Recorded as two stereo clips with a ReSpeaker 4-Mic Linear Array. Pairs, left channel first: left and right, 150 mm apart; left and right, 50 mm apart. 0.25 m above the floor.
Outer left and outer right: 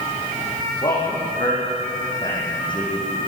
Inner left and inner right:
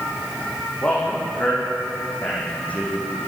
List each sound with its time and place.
0.8 s a man speaking: 30° left (ahead or behind), 10 m